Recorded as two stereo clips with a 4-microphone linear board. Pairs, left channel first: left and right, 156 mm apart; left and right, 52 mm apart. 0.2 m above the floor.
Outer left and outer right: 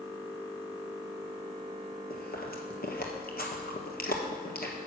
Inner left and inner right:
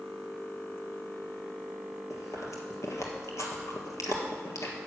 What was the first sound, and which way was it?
Chewing, 70° left (ahead or behind).